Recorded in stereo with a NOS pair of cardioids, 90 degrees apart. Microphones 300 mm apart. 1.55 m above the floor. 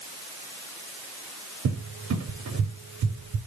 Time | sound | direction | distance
1.6 | a cupboard door | 65° right | 3 m